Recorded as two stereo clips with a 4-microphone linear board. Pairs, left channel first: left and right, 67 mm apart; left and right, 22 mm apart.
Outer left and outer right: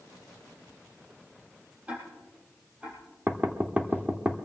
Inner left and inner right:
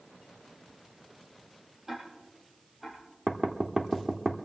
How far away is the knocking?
About 1.0 m.